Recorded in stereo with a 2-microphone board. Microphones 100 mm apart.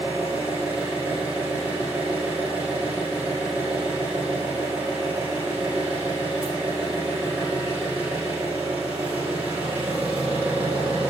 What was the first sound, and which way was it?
An engine running, 15° right (ahead or behind).